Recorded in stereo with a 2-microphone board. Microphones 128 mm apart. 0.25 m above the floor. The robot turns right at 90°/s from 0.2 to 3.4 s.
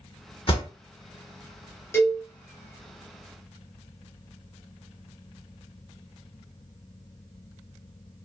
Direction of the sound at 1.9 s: 20° left (ahead or behind).